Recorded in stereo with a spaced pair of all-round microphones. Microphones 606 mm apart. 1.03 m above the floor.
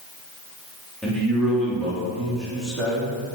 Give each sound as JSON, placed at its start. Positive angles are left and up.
{"t": 1.0, "sound": "a man speaking", "side_deg": 0, "distance_m": 2.5}